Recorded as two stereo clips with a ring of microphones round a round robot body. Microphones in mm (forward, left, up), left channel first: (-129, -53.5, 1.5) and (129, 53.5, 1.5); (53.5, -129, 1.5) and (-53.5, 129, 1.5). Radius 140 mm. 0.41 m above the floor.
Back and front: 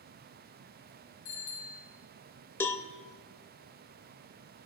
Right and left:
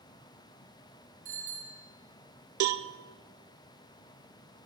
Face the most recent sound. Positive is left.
turn(degrees=120)